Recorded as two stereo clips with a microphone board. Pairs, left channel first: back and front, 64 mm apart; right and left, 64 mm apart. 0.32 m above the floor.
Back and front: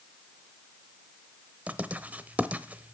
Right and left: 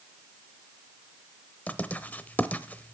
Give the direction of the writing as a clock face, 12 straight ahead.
2 o'clock.